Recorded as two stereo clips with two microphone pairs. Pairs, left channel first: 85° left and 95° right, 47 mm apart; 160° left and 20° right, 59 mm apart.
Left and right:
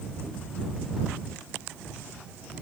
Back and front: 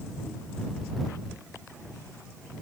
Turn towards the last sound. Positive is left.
No sound to turn to.